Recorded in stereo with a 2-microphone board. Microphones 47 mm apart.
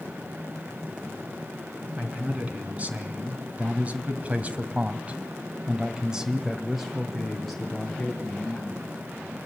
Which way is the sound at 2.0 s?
30° right (ahead or behind).